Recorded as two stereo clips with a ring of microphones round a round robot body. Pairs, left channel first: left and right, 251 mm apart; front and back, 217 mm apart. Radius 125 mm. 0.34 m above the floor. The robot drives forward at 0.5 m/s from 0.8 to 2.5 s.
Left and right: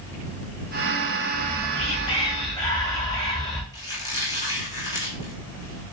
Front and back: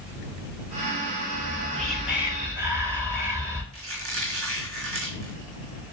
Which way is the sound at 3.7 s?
165° left.